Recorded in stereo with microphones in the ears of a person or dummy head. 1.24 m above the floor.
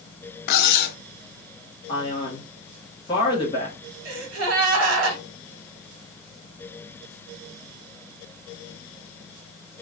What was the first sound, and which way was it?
Cutlery clinking, 55° left (ahead or behind).